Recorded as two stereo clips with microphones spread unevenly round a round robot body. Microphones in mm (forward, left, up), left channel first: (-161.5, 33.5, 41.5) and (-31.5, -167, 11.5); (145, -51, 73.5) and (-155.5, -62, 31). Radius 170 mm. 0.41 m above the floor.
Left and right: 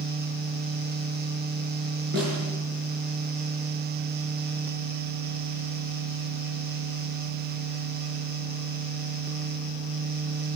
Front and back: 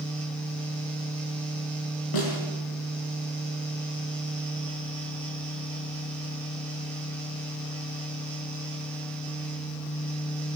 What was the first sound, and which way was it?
A snare drum, straight ahead.